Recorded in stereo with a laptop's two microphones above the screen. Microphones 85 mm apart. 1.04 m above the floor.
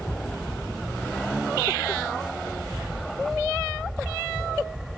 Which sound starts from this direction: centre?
An aircraft, at 0.0 s.